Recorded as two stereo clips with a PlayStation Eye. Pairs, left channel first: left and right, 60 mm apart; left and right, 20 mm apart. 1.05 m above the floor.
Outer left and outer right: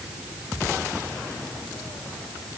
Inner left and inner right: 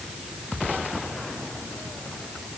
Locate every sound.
Only background noise.